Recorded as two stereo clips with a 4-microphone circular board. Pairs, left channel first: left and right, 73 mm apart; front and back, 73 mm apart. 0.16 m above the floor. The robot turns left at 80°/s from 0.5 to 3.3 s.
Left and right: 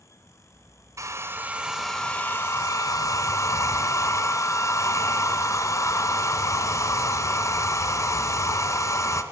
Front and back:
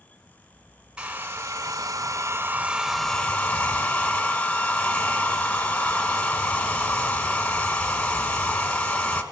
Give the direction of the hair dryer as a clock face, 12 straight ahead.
4 o'clock.